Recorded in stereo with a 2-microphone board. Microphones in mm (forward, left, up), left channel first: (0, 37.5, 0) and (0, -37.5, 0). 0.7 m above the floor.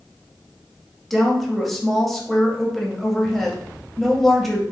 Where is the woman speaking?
Centre (ahead or behind), 0.8 m.